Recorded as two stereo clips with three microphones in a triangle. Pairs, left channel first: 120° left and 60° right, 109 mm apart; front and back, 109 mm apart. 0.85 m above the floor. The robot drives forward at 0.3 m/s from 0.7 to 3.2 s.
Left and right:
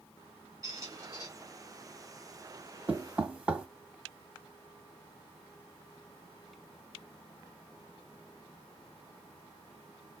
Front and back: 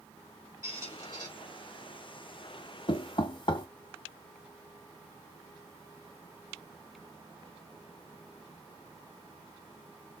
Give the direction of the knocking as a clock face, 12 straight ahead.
12 o'clock.